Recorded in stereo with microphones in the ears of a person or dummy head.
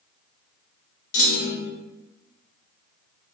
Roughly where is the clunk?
Left.